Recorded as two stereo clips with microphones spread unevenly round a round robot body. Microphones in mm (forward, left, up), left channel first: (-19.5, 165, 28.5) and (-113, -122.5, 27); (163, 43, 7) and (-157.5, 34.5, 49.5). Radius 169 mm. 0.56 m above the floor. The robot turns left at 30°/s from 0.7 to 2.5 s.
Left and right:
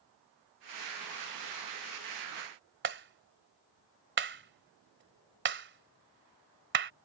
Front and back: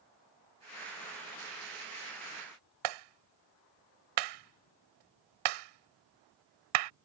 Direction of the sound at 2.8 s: 160° right.